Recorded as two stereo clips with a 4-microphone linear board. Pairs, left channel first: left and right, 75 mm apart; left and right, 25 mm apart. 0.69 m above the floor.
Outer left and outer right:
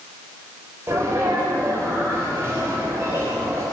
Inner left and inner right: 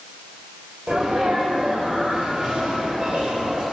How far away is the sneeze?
About 3.5 m.